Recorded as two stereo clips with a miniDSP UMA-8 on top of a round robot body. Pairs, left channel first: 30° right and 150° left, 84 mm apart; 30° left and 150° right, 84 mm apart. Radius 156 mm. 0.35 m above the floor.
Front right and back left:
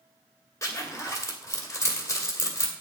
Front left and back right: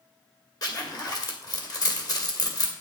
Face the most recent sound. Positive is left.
turn(degrees=15)